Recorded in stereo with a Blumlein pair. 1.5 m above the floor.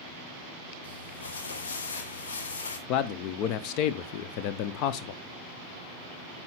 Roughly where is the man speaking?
Ahead left.